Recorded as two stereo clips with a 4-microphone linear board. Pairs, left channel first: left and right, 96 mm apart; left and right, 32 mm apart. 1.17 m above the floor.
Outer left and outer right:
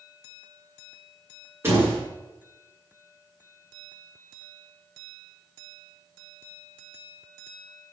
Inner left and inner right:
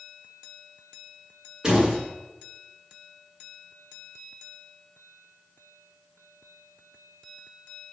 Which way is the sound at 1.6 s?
25° right (ahead or behind).